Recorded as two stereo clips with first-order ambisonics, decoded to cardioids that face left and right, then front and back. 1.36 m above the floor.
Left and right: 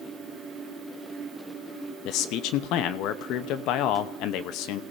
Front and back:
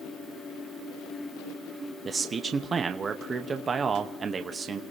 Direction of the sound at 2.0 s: 110° left.